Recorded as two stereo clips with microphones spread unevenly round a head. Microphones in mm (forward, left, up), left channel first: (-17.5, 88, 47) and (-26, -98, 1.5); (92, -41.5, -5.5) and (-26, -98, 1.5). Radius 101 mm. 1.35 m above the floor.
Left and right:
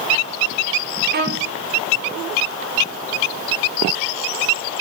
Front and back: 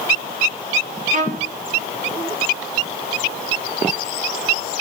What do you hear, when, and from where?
1.1 s a violin: 130° right, 1.9 m